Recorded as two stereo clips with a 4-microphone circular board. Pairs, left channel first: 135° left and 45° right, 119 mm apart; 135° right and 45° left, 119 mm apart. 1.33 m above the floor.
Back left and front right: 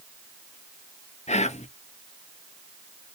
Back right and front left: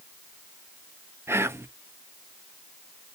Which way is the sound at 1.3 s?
115° left.